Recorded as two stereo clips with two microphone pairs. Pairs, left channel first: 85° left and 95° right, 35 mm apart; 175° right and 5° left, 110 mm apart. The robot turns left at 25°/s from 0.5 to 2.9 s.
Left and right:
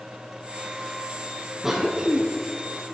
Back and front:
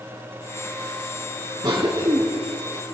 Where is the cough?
20° right, 1.6 m; by 2.2 s 35° right, 1.6 m.